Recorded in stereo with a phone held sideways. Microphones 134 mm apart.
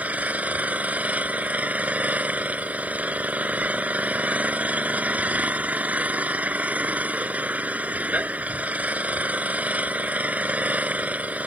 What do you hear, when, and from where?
0.0 s an engine running: 10° right (ahead or behind)